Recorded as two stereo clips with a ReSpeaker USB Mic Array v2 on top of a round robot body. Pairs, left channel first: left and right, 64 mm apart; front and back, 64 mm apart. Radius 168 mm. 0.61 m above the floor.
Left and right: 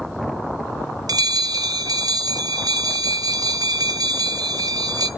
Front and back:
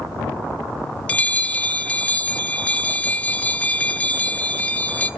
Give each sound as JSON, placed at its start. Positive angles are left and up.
{"t": 1.1, "sound": "a bell", "azimuth_deg": -70, "distance_m": 0.5}